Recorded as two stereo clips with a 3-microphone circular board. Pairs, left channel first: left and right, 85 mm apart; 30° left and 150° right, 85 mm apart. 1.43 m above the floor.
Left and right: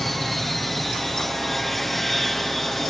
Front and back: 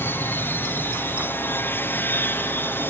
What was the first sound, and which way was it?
An aircraft, 5° left.